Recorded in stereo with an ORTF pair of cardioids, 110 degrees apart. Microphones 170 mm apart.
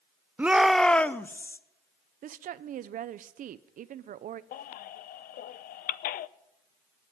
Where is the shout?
10° right, 0.6 m; by 1.6 s 15° left, 1.1 m.